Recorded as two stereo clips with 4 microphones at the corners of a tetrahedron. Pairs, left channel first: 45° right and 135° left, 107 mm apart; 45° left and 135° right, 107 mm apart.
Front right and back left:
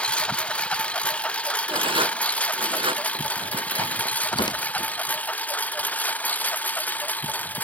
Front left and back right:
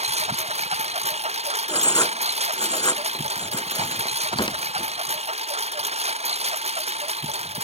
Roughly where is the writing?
Left.